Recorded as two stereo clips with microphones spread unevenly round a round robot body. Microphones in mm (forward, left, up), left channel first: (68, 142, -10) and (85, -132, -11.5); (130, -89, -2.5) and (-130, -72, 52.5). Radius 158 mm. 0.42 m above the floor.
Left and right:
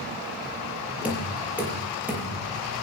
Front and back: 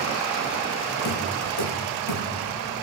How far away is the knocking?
About 7 m.